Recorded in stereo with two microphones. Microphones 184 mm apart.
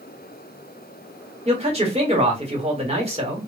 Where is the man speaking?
35° right (ahead or behind), 1.5 m.